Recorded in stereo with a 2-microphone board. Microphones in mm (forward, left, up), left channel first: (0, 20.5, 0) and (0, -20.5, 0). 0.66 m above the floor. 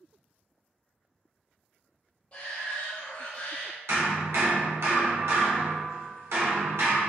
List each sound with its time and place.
2.3 s a shout: 30° left (ahead or behind), 0.5 m
3.9 s hammering: 85° right, 0.8 m